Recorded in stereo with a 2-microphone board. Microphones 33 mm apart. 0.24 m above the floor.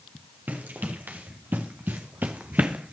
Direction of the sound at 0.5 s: 90° right.